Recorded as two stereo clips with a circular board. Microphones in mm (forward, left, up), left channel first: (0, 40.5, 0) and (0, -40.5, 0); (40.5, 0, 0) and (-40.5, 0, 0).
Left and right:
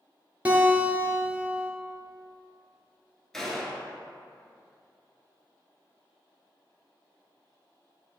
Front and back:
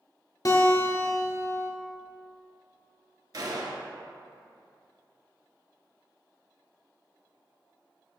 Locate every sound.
0.5 s a guitar: 25° right, 0.8 m
3.3 s a gunshot: 175° left, 0.6 m